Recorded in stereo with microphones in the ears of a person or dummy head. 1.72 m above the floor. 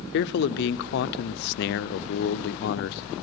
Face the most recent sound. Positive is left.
turn(degrees=60)  # may be behind; listen again after turning